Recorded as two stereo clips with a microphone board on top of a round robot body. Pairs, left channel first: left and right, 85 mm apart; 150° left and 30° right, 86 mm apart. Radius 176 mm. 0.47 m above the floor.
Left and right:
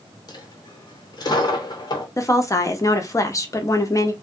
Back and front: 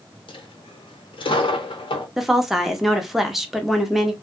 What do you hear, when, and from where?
0.3 s a dropped coin: 130° left, 1.0 m
2.2 s a woman speaking: 55° left, 1.0 m